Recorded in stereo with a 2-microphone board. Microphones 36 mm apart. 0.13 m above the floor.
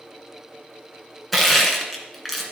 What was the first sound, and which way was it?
Crushing, centre (ahead or behind).